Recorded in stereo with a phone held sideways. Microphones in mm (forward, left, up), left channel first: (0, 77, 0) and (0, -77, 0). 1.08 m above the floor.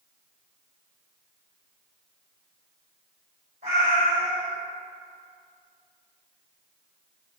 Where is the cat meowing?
65° right (ahead or behind), 1.7 m.